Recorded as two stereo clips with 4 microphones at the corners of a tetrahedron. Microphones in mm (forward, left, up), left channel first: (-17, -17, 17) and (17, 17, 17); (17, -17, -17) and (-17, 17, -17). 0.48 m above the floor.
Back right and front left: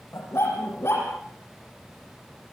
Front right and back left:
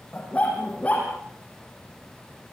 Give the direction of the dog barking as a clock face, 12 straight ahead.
3 o'clock.